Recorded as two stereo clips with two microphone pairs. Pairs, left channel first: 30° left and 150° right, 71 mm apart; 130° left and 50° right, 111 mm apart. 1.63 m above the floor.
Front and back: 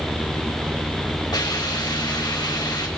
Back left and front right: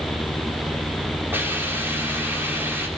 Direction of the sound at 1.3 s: 20° left.